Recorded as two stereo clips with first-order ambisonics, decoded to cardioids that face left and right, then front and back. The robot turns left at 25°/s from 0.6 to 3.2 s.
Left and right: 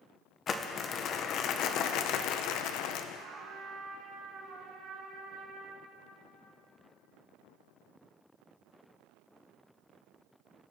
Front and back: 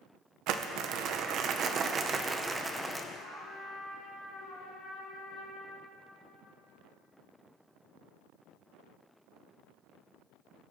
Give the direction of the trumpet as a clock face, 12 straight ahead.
2 o'clock.